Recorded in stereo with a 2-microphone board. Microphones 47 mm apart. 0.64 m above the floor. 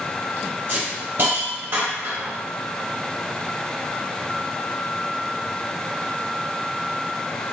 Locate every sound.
0.7 s a hiss: 55° right (ahead or behind), 0.9 m